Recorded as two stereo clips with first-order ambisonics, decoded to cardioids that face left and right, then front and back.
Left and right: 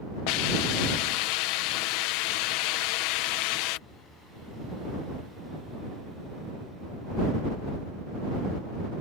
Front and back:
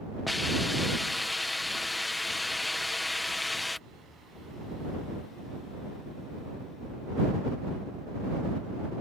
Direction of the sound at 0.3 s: 80° left.